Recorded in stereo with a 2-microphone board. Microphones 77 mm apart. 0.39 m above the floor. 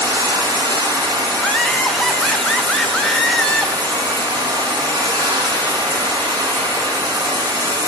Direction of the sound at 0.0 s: 75° right (ahead or behind).